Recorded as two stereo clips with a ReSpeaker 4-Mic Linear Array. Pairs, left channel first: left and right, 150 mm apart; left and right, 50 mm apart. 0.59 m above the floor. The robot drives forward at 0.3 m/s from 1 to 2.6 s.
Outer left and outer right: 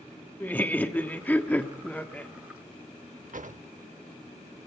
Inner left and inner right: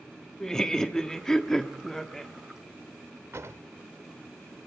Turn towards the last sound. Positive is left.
turn(degrees=-65)  # may be behind; listen again after turning